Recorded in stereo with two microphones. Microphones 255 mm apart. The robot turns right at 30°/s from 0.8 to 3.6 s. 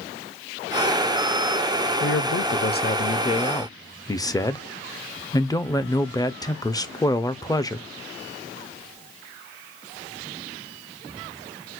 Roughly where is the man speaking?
Behind left.